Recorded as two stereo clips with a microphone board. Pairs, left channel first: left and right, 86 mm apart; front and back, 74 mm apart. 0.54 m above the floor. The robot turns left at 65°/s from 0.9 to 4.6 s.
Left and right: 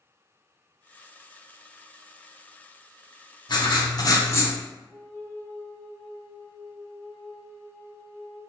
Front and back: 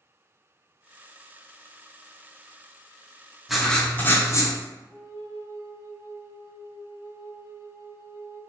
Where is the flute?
160° left, 0.9 m.